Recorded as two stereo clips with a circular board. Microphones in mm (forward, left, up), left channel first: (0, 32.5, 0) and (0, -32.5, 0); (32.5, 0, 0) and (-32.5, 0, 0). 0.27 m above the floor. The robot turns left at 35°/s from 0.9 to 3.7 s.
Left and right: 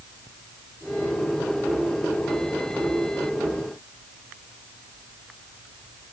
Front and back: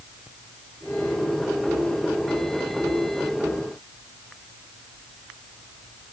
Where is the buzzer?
No buzzer in this recording.